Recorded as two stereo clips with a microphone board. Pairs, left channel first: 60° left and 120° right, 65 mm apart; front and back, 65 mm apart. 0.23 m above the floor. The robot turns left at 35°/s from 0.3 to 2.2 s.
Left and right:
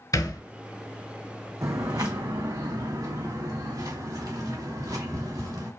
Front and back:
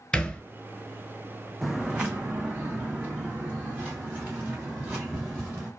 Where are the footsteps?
90° right, 0.6 m; by 5.7 s 120° right, 3 m.